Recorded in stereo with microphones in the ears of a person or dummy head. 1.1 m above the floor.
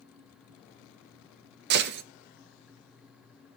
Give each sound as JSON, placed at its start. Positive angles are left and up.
{"t": 1.7, "sound": "a gunshot", "side_deg": -60, "distance_m": 0.6}